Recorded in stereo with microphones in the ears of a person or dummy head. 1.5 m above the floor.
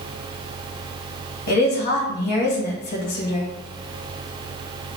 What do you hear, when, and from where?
1.5 s a woman speaking: 50° left (ahead or behind), 1.0 m